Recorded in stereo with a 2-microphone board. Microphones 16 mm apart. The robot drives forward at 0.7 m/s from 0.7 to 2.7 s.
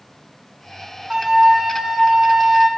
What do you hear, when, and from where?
1.1 s a flute: 50° right (ahead or behind), 2.5 m; by 2.7 s 60° right (ahead or behind), 2 m